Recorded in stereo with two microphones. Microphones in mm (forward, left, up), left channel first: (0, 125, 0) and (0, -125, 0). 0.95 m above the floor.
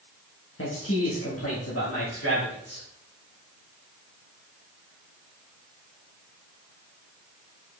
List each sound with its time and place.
0.6 s a man speaking: 60° left (ahead or behind), 1.4 m; by 2.9 s 70° left (ahead or behind), 3 m